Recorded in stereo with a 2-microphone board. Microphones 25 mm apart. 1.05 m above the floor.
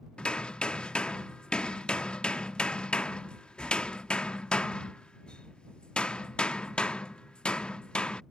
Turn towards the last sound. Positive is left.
turn(degrees=45)  # may be behind; listen again after turning